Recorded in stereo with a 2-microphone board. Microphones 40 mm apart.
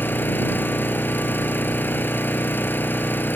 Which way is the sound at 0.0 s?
60° left (ahead or behind).